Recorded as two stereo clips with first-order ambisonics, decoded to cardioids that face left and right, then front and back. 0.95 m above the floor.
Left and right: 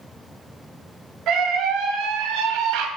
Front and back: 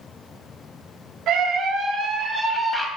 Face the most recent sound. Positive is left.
turn(degrees=-90)